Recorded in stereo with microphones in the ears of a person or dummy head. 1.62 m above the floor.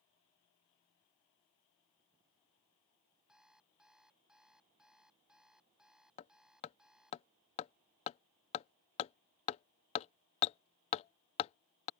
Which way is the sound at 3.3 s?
Centre (ahead or behind).